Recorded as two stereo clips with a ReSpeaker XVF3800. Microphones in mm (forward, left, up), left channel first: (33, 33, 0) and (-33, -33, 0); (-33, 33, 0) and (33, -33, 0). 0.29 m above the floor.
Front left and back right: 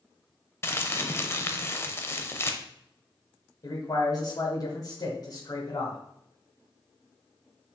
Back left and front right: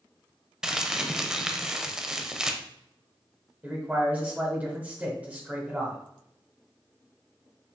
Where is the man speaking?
20° left, 1.3 m.